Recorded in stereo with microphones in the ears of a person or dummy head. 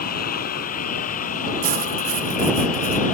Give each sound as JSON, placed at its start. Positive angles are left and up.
{"t": 0.0, "sound": "a lawn mower", "side_deg": 50}
{"t": 1.6, "sound": "cutlery clinking", "side_deg": -45}